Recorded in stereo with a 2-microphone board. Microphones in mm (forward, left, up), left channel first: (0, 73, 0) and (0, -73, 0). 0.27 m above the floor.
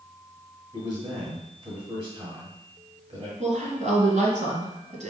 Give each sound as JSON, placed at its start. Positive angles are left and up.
{"t": 0.7, "sound": "a man speaking", "side_deg": -35, "distance_m": 1.8}
{"t": 3.4, "sound": "a woman speaking", "side_deg": -55, "distance_m": 1.9}